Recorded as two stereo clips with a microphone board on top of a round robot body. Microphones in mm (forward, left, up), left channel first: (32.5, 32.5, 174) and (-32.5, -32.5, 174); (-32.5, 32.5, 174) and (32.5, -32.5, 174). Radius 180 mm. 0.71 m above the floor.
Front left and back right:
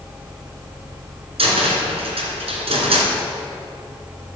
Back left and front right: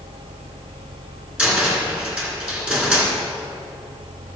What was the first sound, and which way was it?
A cupboard door, 125° right.